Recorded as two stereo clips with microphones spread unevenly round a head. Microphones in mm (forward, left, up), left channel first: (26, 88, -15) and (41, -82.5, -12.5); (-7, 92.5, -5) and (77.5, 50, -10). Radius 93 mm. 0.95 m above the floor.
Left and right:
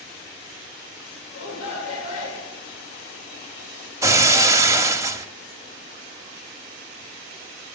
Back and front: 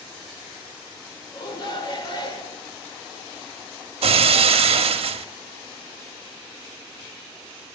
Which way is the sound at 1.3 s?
115° left.